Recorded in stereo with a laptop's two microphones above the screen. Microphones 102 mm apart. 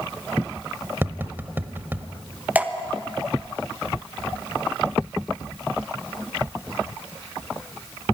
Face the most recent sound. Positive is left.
turn(degrees=-15)  # may be behind; listen again after turning